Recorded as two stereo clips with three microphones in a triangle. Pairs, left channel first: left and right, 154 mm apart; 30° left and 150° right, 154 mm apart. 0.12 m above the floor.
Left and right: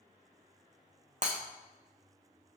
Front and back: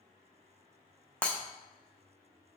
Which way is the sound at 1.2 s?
55° right.